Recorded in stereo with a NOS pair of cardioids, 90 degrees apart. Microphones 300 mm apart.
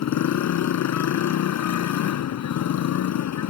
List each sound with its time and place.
0.0 s a motorcycle: 70° left